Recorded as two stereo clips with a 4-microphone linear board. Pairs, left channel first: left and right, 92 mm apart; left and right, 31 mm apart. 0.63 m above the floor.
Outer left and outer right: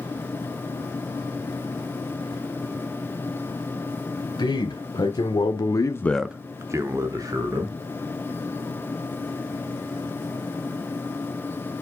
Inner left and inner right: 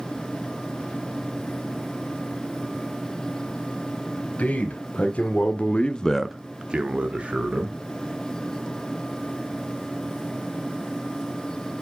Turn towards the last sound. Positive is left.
turn(degrees=-45)  # may be behind; listen again after turning